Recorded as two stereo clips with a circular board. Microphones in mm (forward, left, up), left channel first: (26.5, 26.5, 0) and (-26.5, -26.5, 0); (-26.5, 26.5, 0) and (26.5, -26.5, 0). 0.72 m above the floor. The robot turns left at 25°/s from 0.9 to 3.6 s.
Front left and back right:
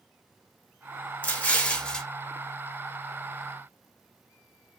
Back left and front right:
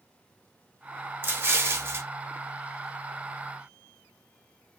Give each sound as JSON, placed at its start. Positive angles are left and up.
{"t": 1.2, "sound": "an explosion", "azimuth_deg": -5, "distance_m": 0.6}